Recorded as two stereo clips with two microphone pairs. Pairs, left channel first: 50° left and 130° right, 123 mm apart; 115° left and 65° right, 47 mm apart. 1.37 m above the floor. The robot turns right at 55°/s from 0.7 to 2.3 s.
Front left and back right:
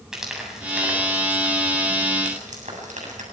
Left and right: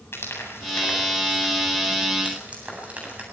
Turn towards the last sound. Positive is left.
turn(degrees=-125)